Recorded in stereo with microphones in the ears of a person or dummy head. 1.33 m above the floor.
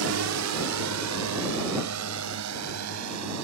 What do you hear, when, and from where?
0.0 s a drone: 70° right (ahead or behind); by 3.5 s 85° right